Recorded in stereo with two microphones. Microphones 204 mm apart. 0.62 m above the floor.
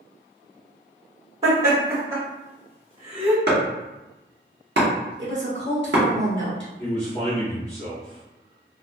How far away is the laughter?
About 1.5 m.